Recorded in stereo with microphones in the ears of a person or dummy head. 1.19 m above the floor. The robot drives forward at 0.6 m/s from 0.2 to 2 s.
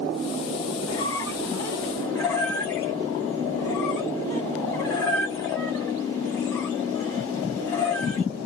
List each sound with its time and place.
0.9 s a squeak: 15° left (ahead or behind), 1.4 m; by 8.2 s 10° left (ahead or behind), 2 m